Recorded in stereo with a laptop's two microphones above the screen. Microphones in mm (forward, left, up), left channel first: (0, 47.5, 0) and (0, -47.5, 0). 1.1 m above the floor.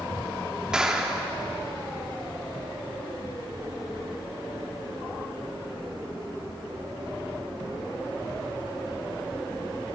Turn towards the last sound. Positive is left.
turn(degrees=-5)  # may be behind; listen again after turning